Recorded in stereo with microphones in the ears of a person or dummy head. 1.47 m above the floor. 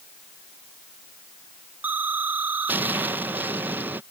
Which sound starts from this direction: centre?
An explosion, at 1.8 s.